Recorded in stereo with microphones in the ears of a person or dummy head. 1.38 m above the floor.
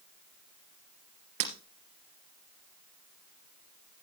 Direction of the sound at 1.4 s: 65° right (ahead or behind).